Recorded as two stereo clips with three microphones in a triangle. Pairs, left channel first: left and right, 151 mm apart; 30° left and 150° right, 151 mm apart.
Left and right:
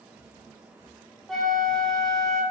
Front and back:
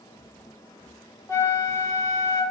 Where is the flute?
5° left, 0.6 m.